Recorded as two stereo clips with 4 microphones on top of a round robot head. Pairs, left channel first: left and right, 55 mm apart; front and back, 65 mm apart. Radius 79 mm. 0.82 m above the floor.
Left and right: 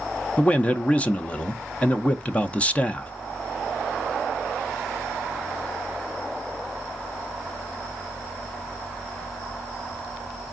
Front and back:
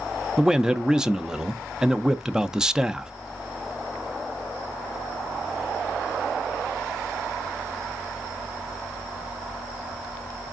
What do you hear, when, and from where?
0.4 s a man speaking: 115° left, 0.5 m